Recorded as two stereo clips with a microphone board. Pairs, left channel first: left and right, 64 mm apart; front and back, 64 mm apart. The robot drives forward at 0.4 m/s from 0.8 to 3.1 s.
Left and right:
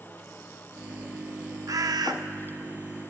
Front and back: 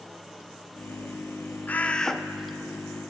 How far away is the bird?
About 0.5 m.